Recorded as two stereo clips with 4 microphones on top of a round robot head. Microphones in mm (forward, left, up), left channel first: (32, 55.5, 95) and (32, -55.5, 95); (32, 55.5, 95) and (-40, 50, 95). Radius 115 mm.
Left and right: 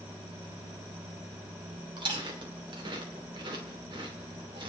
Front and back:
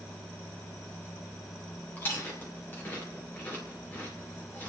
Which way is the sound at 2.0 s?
55° right.